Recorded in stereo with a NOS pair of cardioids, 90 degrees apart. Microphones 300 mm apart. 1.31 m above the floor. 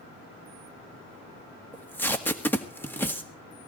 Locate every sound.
1.7 s tape being pulled: 5° left, 1.8 m